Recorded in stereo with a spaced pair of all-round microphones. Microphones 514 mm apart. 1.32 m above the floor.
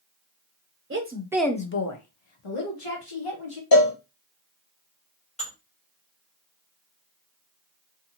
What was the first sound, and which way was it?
A woman speaking, 25° right (ahead or behind).